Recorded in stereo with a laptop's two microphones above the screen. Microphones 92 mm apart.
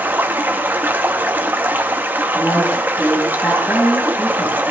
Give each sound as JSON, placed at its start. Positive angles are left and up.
{"t": 0.0, "sound": "running water", "side_deg": -20, "distance_m": 1.3}
{"t": 2.3, "sound": "a woman speaking", "side_deg": 20, "distance_m": 6.0}